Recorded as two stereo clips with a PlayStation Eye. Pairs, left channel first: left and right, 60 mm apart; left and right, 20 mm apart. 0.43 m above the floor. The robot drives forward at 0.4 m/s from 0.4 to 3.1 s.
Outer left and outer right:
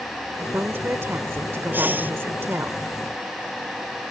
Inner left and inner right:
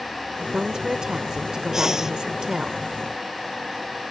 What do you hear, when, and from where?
0.4 s a woman speaking: 40° right (ahead or behind); by 2.7 s 45° right (ahead or behind)
1.7 s breathing: 35° right (ahead or behind); by 2.1 s 30° right (ahead or behind)